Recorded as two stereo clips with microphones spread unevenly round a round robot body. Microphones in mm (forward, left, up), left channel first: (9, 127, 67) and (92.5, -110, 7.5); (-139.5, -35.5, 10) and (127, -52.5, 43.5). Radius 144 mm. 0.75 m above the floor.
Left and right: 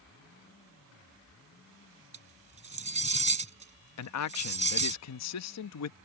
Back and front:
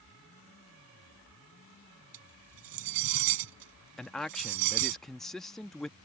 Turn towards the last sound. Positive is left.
turn(degrees=95)